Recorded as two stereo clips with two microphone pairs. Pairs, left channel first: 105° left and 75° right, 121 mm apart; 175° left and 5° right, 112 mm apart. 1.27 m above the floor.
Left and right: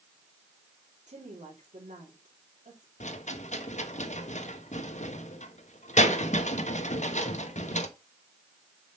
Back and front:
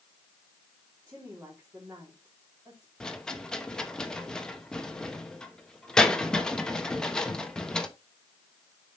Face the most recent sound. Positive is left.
turn(degrees=90)